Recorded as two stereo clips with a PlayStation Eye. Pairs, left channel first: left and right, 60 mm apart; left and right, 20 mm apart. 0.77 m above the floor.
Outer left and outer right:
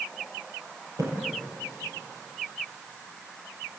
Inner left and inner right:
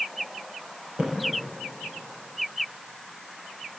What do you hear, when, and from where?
1.0 s a splash: 65° right (ahead or behind), 7.5 m